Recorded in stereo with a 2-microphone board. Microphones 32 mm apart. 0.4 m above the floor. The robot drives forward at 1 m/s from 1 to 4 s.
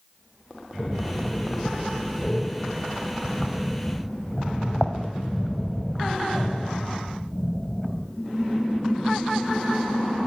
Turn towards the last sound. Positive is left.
turn(degrees=10)  # may be behind; listen again after turning